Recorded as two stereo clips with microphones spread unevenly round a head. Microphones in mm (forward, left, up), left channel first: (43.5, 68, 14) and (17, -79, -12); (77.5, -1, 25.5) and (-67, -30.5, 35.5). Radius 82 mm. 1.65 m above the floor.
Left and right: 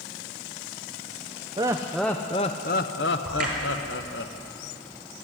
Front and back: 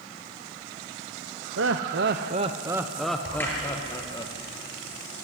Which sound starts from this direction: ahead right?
A crack, at 3.2 s.